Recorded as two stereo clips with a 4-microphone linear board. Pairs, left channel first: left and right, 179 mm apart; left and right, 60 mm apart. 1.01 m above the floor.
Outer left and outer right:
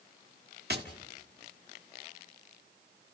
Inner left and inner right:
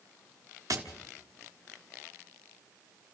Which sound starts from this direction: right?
Tapping, at 0.7 s.